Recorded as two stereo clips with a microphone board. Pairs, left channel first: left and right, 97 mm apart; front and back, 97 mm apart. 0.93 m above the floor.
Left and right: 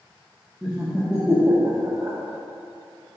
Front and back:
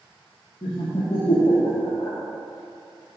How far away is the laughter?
About 1.5 m.